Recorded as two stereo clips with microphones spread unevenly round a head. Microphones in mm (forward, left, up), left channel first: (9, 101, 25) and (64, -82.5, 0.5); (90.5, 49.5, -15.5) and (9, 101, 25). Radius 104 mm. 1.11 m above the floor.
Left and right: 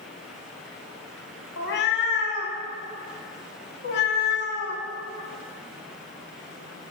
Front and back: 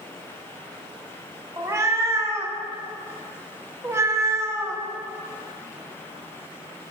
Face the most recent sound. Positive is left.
turn(degrees=110)